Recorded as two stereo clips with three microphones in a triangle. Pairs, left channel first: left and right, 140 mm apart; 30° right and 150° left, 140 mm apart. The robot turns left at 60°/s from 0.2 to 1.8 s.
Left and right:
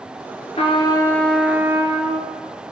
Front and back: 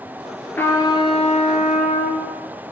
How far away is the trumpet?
About 1.4 m.